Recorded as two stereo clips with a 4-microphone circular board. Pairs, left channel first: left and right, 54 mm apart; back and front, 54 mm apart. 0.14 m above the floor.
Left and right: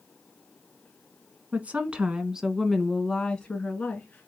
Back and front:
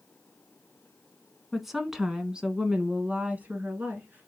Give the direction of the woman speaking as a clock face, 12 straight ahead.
3 o'clock.